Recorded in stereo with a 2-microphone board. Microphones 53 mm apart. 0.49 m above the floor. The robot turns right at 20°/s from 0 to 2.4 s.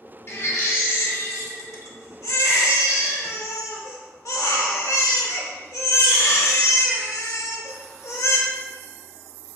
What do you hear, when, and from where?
0.3 s a baby crying: 55° left, 0.5 m; by 8.4 s 95° left, 0.5 m